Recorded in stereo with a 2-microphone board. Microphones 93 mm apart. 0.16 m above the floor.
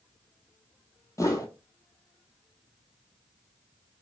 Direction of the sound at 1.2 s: 35° left (ahead or behind).